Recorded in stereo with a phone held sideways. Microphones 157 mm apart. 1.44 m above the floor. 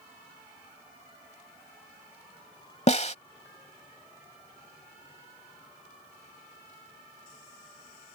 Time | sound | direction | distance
2.9 | a snare drum | 45° left (ahead or behind) | ?